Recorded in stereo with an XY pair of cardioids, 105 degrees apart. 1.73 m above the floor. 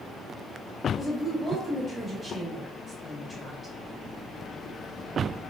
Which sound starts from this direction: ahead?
A woman speaking, at 1.0 s.